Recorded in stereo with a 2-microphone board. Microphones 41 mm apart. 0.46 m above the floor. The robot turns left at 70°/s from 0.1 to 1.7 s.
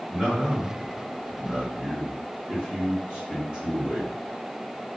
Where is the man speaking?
5° right (ahead or behind), 1.4 m; by 4.1 s 25° right (ahead or behind), 1.4 m.